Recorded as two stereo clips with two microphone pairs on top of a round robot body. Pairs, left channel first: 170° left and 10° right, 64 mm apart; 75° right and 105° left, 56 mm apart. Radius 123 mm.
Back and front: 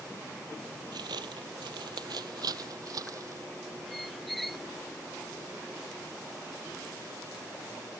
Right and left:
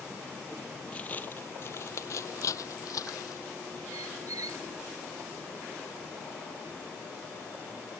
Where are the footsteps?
5° left; by 3.4 s 50° right.